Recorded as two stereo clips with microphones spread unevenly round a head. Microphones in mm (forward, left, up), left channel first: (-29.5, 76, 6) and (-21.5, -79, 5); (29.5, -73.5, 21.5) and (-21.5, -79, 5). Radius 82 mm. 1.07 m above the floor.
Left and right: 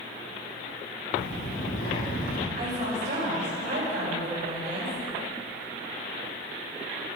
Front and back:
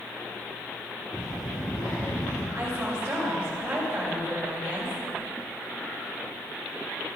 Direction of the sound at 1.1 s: 60° left.